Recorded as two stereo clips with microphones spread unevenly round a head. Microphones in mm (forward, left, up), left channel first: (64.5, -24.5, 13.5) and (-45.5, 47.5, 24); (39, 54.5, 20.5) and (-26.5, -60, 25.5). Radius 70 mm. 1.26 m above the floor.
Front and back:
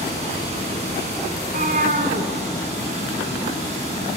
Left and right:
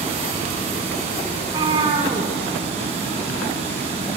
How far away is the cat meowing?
About 2.5 m.